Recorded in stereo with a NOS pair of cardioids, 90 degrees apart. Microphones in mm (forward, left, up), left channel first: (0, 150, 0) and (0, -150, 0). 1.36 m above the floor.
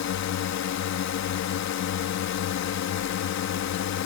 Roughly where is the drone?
Ahead left.